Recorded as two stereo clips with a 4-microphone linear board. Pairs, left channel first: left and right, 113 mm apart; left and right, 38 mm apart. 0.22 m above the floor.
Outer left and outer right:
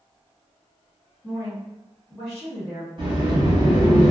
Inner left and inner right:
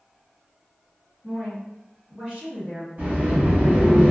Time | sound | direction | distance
1.2 | a woman speaking | centre (ahead or behind) | 1.7 m
3.0 | a sliding door | 45° right (ahead or behind) | 1.4 m